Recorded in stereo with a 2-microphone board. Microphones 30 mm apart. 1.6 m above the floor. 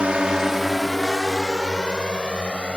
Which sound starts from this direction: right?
A drone, at 0.0 s.